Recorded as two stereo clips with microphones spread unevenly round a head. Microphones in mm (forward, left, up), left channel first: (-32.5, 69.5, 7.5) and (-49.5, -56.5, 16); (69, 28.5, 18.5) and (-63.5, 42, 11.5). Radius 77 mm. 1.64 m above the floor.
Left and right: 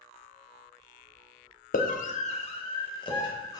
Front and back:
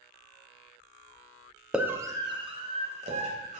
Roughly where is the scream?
Left.